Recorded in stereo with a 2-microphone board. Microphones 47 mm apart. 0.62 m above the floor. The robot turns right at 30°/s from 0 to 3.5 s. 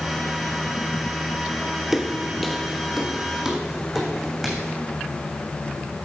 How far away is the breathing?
I don't hear breathing.